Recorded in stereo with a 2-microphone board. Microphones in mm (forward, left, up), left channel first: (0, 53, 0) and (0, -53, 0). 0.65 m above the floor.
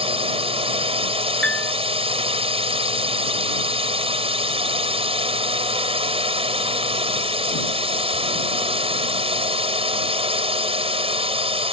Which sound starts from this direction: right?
A drone, at 0.0 s.